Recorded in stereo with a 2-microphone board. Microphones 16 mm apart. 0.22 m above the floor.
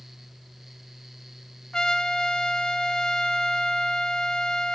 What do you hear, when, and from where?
1.7 s a trumpet: 55° left (ahead or behind), 1.6 m